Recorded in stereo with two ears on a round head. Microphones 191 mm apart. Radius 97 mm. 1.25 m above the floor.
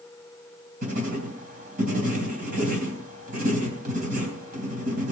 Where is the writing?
40° right (ahead or behind), 3.5 m.